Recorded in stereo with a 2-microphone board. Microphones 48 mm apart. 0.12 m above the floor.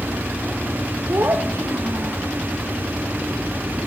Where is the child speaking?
70° right (ahead or behind), 3.5 m.